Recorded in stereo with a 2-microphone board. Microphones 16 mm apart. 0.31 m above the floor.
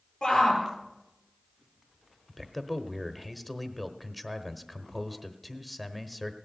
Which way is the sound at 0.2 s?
30° left (ahead or behind).